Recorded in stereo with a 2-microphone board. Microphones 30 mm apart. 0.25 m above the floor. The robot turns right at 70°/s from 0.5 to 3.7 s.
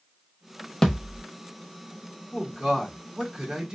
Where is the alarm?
I don't hear an alarm.